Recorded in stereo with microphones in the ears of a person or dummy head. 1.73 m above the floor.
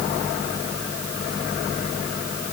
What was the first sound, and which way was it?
Only background noise.